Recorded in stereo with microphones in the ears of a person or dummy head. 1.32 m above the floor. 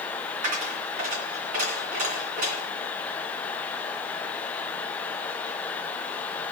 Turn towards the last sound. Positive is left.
turn(degrees=-45)  # may be behind; listen again after turning